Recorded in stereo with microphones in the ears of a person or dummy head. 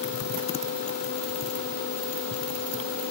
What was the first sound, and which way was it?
Only background noise.